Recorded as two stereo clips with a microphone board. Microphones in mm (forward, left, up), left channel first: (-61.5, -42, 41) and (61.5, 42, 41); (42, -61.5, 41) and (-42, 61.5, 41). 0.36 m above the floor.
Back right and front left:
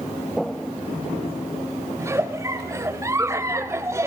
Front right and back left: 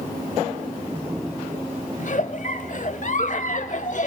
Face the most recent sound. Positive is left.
turn(degrees=-35)